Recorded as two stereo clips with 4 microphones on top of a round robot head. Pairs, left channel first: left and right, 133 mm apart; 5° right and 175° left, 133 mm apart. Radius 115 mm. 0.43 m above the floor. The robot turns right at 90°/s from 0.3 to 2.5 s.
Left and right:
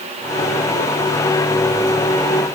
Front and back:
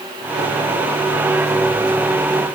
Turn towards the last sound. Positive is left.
No sound to turn to.